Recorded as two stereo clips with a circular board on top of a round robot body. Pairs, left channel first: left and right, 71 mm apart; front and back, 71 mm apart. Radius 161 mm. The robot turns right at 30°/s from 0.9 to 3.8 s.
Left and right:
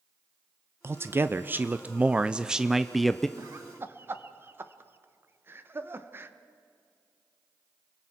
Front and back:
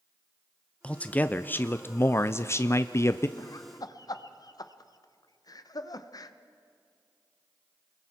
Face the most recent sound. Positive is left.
turn(degrees=-30)